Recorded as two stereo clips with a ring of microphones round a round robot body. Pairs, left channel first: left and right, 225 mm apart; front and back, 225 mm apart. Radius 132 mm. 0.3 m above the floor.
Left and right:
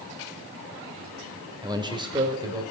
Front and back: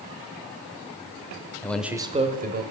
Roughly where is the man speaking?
Ahead right.